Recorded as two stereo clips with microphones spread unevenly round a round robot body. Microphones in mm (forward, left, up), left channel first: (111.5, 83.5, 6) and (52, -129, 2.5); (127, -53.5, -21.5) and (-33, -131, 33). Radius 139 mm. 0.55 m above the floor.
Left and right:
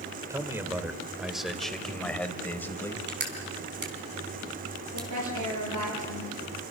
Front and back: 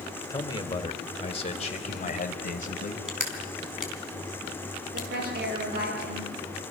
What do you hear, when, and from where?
0.3 s a man speaking: 30° right, 2.5 m; by 3.0 s 5° right, 4 m
3.1 s crushing: 65° right, 4.5 m
4.9 s a woman speaking: 130° right, 10 m